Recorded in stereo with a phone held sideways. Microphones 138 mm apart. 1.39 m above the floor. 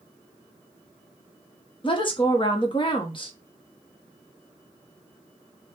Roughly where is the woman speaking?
Left.